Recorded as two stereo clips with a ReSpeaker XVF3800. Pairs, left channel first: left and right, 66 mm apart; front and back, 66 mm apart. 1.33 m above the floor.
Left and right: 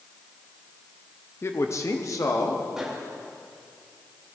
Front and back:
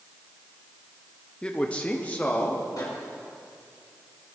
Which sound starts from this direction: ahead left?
A man speaking, at 1.4 s.